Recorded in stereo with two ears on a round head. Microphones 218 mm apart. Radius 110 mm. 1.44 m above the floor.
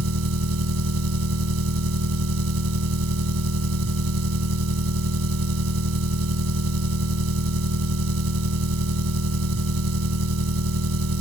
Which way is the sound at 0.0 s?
70° right (ahead or behind).